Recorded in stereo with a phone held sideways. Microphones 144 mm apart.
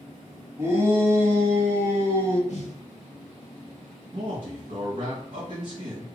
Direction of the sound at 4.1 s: 55° right (ahead or behind).